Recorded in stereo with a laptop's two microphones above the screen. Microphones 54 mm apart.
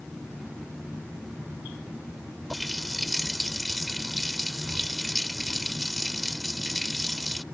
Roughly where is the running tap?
Centre.